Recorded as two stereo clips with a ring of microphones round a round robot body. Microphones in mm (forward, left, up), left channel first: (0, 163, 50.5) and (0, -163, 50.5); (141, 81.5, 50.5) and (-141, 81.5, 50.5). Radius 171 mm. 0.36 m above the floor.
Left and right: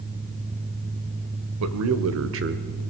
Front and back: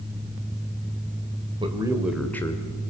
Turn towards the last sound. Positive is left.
turn(degrees=-60)